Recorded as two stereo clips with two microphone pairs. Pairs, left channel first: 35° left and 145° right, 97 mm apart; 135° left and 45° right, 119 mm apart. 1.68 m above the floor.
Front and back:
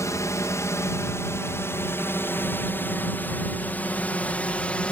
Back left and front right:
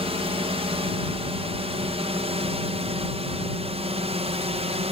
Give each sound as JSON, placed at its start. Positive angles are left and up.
{"t": 0.0, "sound": "a drone", "azimuth_deg": -20}